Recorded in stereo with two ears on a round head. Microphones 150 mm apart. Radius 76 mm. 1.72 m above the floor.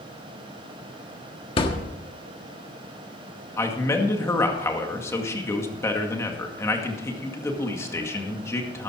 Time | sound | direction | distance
1.6 | a thud | 30° left (ahead or behind) | 1.4 m
3.6 | a man speaking | 15° left (ahead or behind) | 2 m